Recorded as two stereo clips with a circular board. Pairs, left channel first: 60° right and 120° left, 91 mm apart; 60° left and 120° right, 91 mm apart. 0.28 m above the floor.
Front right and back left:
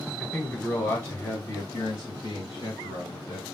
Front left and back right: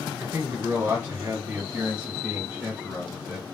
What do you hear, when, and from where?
0.2 s a man speaking: 140° right, 1.0 m; by 3.4 s 35° right, 1.7 m